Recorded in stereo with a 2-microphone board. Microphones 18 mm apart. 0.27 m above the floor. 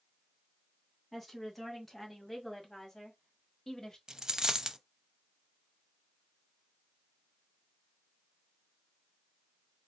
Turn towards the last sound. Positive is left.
turn(degrees=-45)  # may be behind; listen again after turning